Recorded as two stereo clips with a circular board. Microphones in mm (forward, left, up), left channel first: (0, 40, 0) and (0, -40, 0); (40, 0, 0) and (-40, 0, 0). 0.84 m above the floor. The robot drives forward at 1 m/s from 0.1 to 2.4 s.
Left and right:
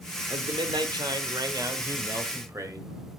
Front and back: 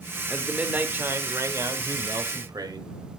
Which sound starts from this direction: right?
A man speaking, at 0.3 s.